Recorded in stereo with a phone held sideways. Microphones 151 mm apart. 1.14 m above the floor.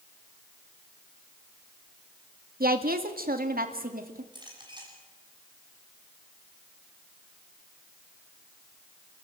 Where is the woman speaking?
75° right (ahead or behind), 1.8 m; by 4.2 s 70° right (ahead or behind), 2.5 m.